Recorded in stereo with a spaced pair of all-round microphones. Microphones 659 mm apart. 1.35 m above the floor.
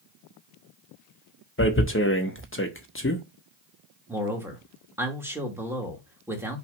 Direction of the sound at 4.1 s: 5° right (ahead or behind).